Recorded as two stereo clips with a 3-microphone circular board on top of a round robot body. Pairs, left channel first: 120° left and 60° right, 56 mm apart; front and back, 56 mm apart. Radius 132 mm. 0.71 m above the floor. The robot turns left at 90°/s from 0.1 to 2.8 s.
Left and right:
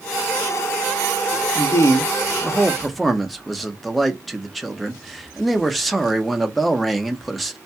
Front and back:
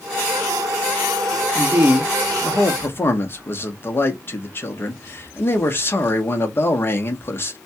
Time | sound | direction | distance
1.6 | a man speaking | 145° left | 0.9 m